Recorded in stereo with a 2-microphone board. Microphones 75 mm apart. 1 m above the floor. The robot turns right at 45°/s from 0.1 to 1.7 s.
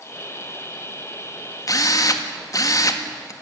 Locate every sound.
1.7 s a drill: 50° left (ahead or behind), 1.7 m